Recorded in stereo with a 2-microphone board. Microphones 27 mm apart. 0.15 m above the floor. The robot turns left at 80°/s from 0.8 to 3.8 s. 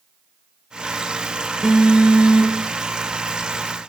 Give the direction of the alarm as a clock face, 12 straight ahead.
1 o'clock.